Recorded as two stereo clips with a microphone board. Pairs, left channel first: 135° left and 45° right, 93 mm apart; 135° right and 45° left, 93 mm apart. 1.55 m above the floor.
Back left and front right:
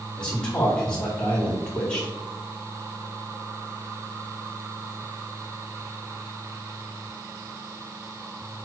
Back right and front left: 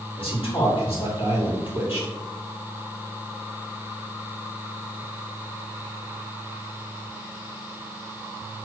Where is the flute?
No flute in this recording.